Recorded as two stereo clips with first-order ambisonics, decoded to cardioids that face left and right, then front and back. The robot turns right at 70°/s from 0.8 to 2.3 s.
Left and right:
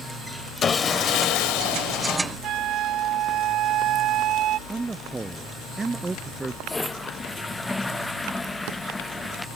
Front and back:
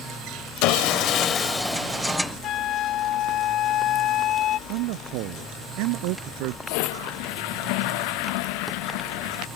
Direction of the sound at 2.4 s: 45° right.